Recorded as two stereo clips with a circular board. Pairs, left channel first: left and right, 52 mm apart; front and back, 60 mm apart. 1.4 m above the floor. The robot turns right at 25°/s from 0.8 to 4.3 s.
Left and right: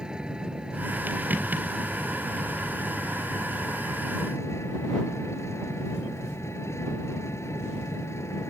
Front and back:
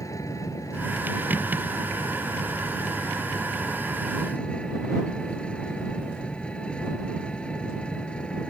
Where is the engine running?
15° right; by 8.5 s 70° left.